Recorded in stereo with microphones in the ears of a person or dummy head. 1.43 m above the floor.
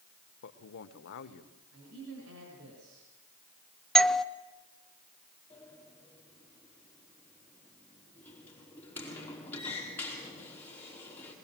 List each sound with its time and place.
0.4 s a man speaking: 65° left (ahead or behind), 1.3 m
1.7 s a man speaking: 80° right, 6 m
4.0 s a doorbell: 5° left (ahead or behind), 0.7 m
5.5 s a sliding door: 10° left (ahead or behind), 4.5 m